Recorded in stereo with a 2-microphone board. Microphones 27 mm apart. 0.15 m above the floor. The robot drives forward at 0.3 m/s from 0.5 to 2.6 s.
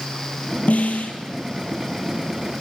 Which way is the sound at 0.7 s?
70° left (ahead or behind).